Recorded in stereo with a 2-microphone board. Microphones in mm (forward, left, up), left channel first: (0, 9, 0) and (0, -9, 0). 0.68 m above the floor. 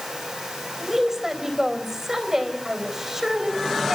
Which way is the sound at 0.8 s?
25° right (ahead or behind).